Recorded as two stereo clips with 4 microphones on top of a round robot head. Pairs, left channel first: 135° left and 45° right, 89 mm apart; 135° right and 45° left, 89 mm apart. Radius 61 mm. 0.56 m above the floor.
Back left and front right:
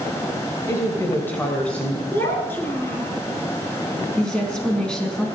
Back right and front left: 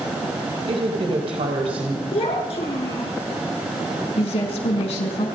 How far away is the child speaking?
About 4.5 m.